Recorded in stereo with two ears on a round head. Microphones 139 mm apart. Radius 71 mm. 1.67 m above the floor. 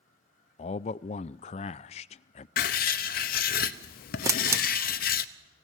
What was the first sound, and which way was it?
A man speaking, 40° left (ahead or behind).